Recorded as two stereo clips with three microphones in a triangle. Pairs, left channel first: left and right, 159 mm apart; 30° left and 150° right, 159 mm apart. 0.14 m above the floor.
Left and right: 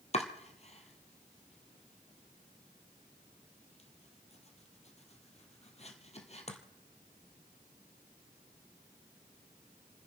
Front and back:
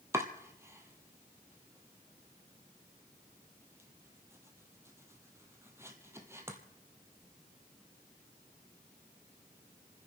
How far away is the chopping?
About 1.4 m.